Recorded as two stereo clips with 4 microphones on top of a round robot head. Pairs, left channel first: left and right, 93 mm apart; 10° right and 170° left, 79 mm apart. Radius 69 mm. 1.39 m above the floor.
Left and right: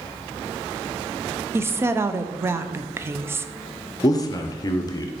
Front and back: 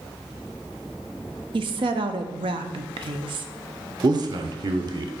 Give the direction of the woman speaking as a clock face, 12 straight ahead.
5 o'clock.